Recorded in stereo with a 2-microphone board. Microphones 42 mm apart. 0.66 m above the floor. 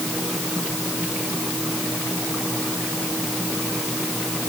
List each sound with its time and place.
Only background noise.